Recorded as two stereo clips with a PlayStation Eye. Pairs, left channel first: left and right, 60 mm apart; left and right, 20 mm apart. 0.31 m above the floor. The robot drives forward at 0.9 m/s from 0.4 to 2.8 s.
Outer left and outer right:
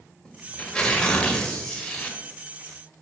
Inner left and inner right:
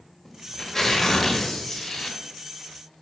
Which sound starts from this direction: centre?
Tearing paper, at 0.2 s.